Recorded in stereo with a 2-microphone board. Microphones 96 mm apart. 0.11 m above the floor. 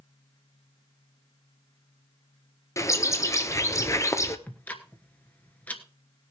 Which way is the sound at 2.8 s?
30° left (ahead or behind).